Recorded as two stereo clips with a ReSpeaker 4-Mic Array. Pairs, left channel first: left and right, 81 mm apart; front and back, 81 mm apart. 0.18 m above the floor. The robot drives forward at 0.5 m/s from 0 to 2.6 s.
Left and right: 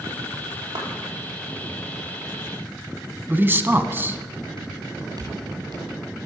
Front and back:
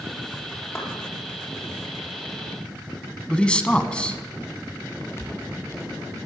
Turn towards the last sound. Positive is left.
turn(degrees=-55)